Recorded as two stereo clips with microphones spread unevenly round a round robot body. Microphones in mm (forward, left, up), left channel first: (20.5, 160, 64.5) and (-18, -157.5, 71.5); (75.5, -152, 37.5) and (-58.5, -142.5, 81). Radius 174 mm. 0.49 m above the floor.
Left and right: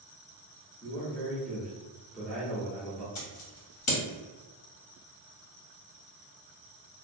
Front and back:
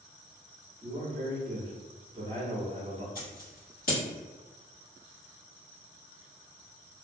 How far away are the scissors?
About 1.4 m.